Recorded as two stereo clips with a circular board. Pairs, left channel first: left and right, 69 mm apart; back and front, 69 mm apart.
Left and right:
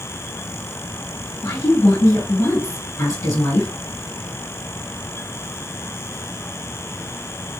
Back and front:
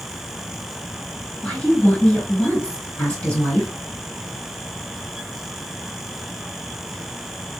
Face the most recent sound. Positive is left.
turn(degrees=105)